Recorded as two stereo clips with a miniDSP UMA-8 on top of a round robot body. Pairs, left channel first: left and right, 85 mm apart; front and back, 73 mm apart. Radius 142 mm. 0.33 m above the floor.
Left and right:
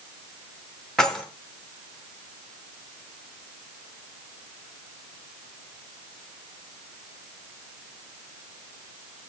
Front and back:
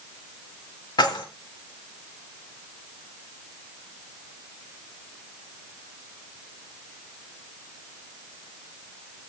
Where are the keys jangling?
5° left, 2.5 m.